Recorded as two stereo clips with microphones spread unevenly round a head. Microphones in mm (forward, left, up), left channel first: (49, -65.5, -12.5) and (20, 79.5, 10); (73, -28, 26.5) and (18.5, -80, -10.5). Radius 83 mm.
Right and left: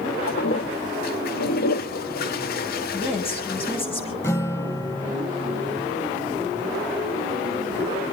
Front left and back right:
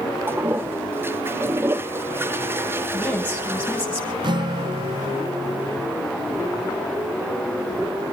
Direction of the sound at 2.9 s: 25° right.